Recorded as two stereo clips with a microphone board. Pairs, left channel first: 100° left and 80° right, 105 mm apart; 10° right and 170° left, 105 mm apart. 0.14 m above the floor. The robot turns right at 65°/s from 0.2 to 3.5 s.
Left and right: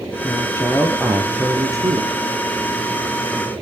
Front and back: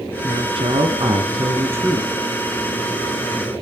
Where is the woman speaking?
135° left, 2.5 m; by 2.1 s 100° right, 2.5 m.